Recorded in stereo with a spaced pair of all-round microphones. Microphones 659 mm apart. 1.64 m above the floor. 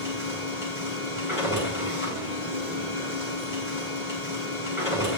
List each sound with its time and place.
0.0 s a machine running: 50° left (ahead or behind), 5 m